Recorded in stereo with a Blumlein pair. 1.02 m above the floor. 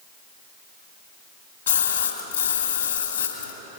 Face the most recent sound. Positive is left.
turn(degrees=70)